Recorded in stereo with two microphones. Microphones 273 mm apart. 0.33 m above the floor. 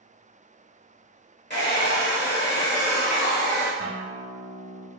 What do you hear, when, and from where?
1.5 s a hair dryer: 40° left (ahead or behind), 0.9 m
3.8 s a guitar: 30° right (ahead or behind), 0.6 m